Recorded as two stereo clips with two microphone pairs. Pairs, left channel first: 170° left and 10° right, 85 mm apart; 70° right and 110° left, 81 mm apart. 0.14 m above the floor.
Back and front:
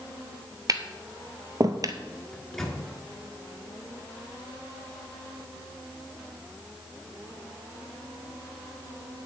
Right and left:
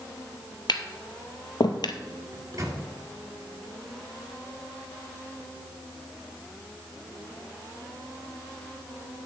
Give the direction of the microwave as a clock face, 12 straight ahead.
9 o'clock.